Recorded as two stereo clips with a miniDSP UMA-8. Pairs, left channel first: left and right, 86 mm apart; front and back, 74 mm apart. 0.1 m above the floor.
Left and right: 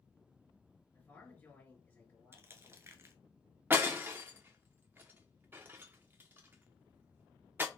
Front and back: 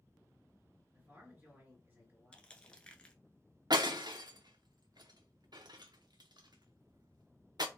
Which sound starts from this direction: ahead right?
Crushing, at 2.3 s.